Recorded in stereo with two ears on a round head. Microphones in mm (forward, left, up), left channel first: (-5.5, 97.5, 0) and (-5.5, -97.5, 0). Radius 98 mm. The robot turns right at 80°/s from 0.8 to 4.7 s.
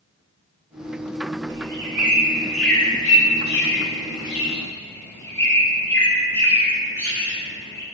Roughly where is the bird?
Right.